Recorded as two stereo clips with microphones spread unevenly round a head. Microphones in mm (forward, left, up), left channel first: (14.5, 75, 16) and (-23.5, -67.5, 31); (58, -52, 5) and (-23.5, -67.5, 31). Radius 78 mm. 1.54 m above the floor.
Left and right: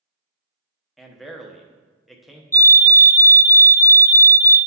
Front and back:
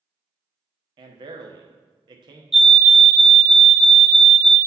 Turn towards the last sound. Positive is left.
turn(degrees=60)